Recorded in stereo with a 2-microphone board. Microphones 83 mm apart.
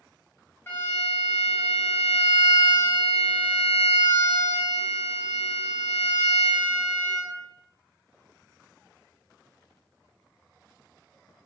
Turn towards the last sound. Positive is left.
turn(degrees=25)  # may be behind; listen again after turning